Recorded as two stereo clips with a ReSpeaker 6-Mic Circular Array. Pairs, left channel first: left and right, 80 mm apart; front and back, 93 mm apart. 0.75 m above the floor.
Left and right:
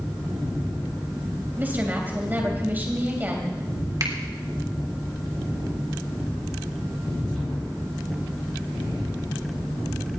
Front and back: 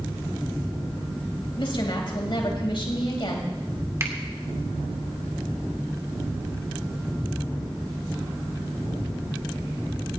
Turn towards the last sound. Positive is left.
turn(degrees=-125)